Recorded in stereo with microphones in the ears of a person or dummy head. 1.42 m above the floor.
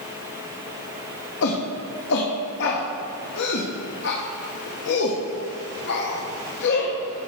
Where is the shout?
60° left (ahead or behind), 1.3 m.